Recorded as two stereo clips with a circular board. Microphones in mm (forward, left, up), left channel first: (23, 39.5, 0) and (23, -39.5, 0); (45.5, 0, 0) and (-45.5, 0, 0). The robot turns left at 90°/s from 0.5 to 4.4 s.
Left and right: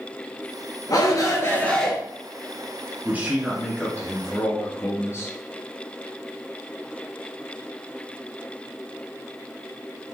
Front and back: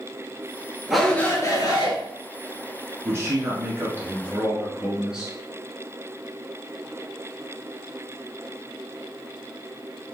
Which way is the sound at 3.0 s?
135° right.